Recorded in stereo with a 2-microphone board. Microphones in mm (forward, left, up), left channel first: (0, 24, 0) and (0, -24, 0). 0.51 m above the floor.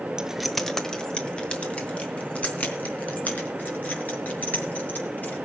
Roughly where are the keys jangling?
Centre.